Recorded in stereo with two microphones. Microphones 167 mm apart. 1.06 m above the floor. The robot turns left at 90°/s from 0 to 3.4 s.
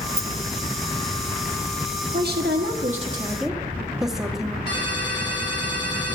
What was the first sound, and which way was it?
A rattle, 40° right (ahead or behind).